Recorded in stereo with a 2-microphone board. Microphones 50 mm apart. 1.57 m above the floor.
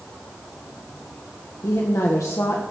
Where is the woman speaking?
85° left, 1.7 m.